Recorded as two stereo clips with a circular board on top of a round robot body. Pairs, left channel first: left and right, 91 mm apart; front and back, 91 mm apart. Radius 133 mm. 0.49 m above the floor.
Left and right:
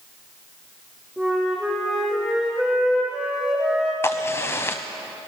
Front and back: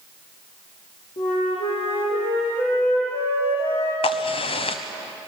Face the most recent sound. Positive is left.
turn(degrees=25)